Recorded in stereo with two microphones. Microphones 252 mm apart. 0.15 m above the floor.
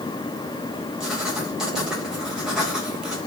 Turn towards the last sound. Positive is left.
turn(degrees=0)  # may be behind; listen again after turning